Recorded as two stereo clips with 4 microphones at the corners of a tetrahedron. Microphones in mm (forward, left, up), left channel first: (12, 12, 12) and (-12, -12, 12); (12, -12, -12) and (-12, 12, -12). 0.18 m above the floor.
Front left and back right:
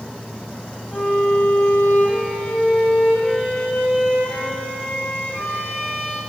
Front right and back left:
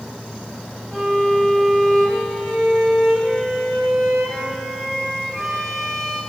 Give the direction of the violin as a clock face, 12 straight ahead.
11 o'clock.